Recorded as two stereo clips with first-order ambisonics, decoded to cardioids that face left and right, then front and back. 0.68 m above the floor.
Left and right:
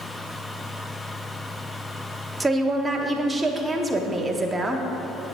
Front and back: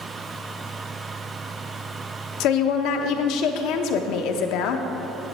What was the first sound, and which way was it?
A woman speaking, 15° right.